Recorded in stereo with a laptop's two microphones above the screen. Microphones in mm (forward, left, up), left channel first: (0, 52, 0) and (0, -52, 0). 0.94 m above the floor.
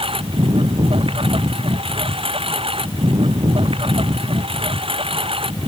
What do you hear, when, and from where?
0.0 s a lawn mower: 65° right (ahead or behind)